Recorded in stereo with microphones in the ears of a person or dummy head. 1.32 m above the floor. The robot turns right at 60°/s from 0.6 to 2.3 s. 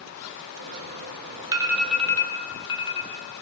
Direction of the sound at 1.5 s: 25° right (ahead or behind).